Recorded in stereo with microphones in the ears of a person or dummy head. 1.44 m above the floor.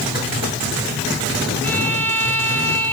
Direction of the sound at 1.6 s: 5° left (ahead or behind).